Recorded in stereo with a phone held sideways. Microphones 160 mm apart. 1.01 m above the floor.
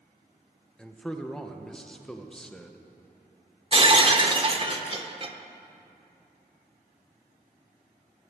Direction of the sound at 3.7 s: 35° right (ahead or behind).